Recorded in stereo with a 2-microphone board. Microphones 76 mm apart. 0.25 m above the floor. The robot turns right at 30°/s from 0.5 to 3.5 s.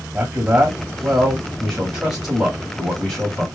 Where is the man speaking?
25° right (ahead or behind), 1.4 m; by 3.5 s 10° left (ahead or behind), 1.4 m.